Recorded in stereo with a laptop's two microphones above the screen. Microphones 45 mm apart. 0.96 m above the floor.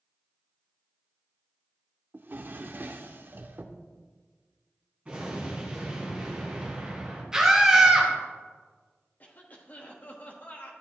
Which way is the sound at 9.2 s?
35° left (ahead or behind).